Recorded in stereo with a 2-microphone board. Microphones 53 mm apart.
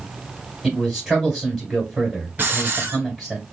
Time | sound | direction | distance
0.6 | a man speaking | 5° right (ahead or behind) | 2.5 m
2.4 | a hiss | 40° right (ahead or behind) | 0.8 m